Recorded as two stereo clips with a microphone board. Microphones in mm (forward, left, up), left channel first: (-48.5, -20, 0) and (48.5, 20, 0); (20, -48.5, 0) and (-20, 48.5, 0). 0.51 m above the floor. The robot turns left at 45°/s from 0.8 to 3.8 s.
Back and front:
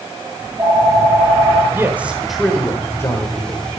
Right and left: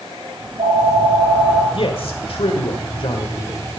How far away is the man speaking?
About 1.5 m.